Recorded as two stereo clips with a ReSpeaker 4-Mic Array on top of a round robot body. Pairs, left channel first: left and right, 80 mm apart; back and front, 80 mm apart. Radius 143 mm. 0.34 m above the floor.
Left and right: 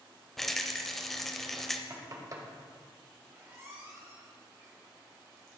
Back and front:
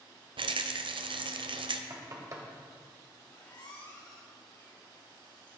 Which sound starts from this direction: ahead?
A rattle, at 0.4 s.